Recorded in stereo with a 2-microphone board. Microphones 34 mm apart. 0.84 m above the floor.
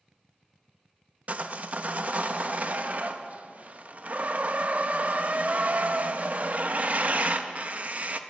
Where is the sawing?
45° right (ahead or behind), 0.5 m.